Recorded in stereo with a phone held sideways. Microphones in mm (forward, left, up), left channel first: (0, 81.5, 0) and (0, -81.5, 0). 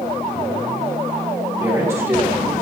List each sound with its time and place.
1.6 s a man speaking: 15° right (ahead or behind), 1.8 m